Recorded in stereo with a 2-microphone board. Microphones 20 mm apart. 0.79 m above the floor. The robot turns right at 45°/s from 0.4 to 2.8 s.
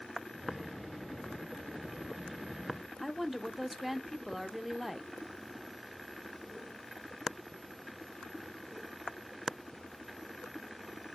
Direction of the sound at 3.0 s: 5° right (ahead or behind).